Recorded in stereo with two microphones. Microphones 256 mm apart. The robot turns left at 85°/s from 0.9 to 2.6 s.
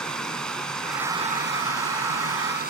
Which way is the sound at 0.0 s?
5° left.